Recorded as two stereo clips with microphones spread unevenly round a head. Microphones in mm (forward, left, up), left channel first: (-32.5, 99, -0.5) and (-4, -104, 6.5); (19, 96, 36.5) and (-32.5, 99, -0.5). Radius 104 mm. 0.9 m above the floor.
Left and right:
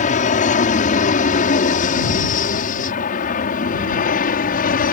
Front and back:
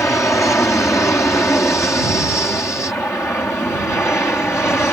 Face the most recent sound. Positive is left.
turn(degrees=60)